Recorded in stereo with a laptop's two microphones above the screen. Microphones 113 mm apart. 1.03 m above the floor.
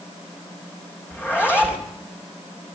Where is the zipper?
20° left (ahead or behind), 3.5 m.